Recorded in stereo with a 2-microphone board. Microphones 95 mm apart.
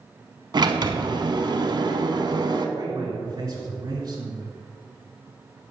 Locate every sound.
0.5 s a sliding door: 50° right (ahead or behind), 0.7 m
2.8 s a man speaking: 40° right (ahead or behind), 1.5 m